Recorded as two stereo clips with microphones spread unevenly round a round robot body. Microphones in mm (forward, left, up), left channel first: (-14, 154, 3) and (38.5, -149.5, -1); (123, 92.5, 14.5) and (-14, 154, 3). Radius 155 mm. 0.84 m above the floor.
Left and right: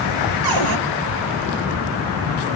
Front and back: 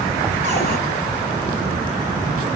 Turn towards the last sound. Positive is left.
turn(degrees=-60)